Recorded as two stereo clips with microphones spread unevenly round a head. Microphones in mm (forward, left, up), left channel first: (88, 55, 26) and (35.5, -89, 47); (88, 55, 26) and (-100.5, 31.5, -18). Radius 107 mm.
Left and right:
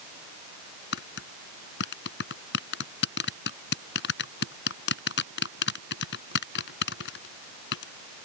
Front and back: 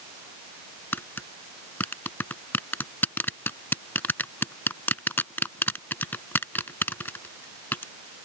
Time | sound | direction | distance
0.9 | tapping | 85° left | ?